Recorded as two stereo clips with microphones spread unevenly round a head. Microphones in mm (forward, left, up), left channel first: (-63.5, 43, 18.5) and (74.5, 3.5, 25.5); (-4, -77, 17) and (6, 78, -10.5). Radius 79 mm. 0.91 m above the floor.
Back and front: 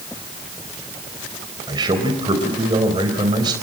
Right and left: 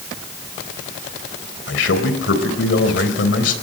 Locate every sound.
1.7 s a man speaking: 80° right, 3.5 m